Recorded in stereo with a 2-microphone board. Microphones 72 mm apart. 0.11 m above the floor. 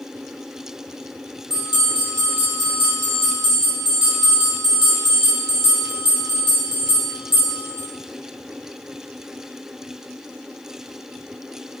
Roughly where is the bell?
Centre.